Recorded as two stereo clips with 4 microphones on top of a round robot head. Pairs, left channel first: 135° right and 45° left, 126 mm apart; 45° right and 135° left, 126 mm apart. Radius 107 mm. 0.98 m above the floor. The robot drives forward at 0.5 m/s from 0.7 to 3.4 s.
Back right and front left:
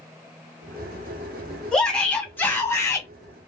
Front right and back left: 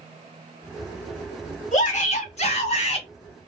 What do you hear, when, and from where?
1.7 s a shout: 50° right, 1.7 m; by 3.1 s 75° right, 1.5 m